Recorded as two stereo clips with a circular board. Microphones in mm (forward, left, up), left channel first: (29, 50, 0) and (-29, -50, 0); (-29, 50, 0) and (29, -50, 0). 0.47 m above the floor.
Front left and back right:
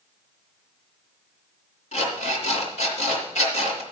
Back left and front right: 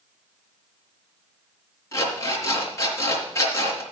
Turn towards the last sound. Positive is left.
turn(degrees=55)